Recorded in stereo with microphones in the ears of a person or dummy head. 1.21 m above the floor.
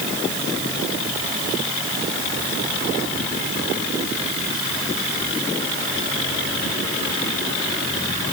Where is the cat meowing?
No cat meowing in this recording.